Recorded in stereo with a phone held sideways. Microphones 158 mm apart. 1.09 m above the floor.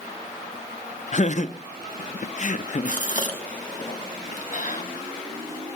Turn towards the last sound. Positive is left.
turn(degrees=55)  # may be behind; listen again after turning